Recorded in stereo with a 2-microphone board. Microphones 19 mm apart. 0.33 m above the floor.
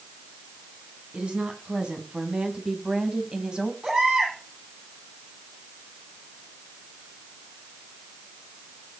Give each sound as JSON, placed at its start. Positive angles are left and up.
{"t": 1.1, "sound": "a woman speaking", "side_deg": -65, "distance_m": 3.5}
{"t": 3.8, "sound": "a baby crying", "side_deg": -45, "distance_m": 8.5}